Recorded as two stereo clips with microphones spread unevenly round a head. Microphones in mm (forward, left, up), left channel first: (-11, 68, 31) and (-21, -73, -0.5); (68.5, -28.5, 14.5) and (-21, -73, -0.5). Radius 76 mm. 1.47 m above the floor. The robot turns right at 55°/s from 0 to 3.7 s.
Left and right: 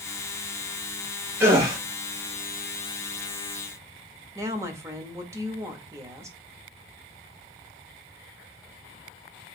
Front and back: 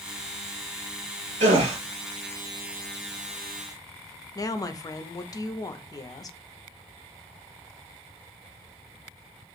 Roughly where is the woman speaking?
Ahead right.